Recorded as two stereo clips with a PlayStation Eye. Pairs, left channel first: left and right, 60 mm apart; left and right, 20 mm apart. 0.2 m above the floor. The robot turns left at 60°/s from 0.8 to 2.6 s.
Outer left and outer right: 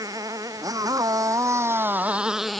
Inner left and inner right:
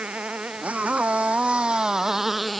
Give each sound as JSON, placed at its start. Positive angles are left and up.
{"t": 0.0, "sound": "a motorcycle", "side_deg": -85}